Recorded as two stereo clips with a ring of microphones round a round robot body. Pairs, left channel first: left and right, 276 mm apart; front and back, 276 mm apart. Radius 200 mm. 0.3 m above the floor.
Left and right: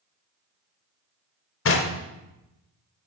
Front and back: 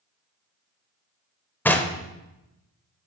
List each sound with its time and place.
1.6 s knocking: 80° left, 0.8 m